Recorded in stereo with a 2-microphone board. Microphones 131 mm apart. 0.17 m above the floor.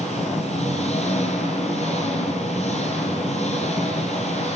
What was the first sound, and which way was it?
An engine running, 55° left (ahead or behind).